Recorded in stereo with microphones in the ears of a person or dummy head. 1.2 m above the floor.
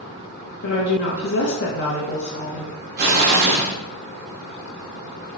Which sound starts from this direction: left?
A woman speaking, at 0.6 s.